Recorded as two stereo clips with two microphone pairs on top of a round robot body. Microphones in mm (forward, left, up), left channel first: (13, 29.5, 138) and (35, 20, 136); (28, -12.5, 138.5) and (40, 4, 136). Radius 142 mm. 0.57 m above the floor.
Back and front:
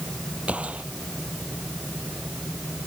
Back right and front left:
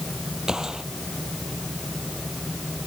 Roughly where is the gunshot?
Ahead.